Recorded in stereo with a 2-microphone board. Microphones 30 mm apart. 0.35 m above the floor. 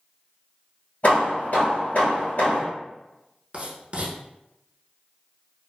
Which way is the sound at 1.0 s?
60° left (ahead or behind).